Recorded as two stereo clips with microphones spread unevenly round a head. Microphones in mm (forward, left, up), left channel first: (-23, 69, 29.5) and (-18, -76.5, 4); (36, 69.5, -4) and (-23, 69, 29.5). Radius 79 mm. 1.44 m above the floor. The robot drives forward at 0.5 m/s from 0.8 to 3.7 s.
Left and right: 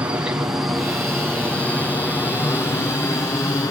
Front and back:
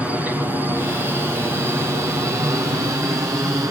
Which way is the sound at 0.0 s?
70° right.